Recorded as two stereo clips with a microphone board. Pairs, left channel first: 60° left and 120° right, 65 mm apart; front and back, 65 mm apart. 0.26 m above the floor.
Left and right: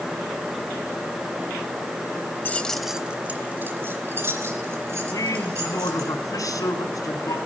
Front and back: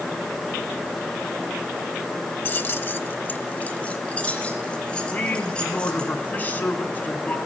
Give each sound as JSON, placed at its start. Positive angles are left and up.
{"t": 2.5, "sound": "keys jangling", "azimuth_deg": 30, "distance_m": 0.7}
{"t": 5.1, "sound": "a man speaking", "azimuth_deg": 60, "distance_m": 2.5}